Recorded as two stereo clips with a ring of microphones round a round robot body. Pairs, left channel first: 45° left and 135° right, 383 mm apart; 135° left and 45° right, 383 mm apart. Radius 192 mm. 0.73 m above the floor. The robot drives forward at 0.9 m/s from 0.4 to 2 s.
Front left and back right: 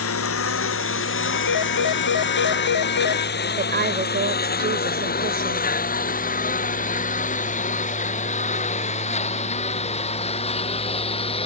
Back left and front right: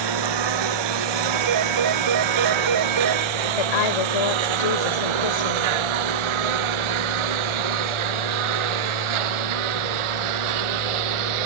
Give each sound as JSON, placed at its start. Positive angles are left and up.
{"t": 0.0, "sound": "a lawn mower", "azimuth_deg": -15}
{"t": 1.3, "sound": "a phone ringing", "azimuth_deg": 0}
{"t": 3.6, "sound": "a woman speaking", "azimuth_deg": 160}